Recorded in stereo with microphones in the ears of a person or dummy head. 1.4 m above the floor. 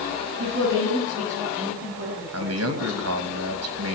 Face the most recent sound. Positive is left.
turn(degrees=-80)